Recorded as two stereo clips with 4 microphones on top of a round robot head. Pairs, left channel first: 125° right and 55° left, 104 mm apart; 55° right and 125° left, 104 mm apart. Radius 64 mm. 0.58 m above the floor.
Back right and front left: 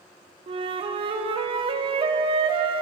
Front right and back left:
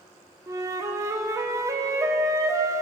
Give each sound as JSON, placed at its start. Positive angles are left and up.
{"t": 0.5, "sound": "a flute", "azimuth_deg": 70, "distance_m": 0.5}